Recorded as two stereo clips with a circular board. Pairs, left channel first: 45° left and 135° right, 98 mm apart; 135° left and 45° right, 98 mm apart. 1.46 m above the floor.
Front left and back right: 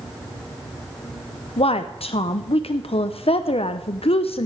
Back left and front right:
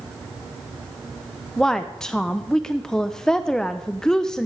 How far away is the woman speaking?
About 0.6 m.